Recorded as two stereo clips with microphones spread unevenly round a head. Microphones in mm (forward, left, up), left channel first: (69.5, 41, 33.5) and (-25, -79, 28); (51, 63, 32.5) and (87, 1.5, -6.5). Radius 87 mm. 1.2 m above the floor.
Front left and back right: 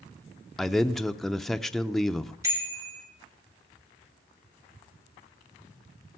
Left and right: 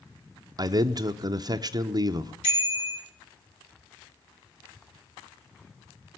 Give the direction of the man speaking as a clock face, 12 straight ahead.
1 o'clock.